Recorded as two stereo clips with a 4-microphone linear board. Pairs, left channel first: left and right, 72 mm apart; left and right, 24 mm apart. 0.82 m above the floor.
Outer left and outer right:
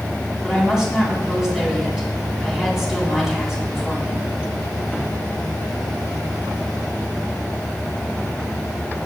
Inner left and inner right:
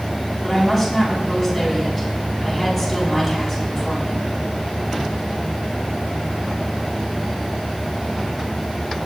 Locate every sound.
0.4 s a woman speaking: 5° right (ahead or behind), 6 m